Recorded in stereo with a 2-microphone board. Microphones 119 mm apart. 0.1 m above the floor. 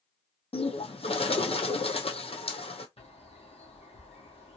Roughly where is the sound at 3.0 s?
Left.